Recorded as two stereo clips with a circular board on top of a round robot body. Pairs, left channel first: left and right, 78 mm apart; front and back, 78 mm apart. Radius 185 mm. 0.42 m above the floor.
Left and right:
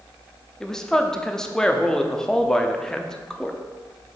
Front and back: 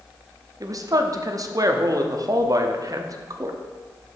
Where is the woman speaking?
170° left, 0.9 m.